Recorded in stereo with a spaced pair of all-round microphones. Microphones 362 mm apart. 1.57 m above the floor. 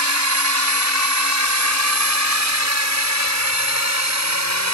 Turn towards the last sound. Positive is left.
turn(degrees=-50)  # may be behind; listen again after turning